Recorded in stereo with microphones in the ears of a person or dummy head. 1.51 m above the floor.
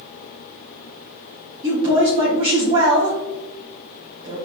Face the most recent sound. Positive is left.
turn(degrees=-30)  # may be behind; listen again after turning